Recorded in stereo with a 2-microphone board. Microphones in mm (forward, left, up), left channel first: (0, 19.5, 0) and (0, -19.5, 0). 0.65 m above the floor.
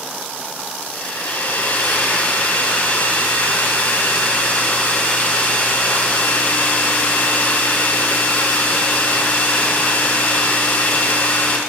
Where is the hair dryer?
50° left (ahead or behind), 2.5 m.